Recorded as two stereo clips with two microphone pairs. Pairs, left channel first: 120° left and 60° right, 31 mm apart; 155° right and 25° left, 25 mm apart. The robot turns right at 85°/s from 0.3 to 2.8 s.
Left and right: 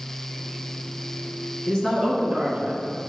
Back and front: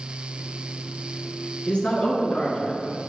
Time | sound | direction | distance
1.7 | a man speaking | 175° left | 2.5 m